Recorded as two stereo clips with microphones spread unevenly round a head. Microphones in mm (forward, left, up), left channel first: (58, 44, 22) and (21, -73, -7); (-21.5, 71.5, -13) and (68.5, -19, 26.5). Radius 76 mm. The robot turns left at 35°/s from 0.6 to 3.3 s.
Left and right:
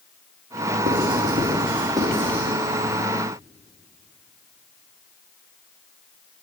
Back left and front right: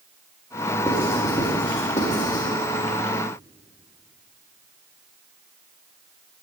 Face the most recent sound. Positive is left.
turn(degrees=135)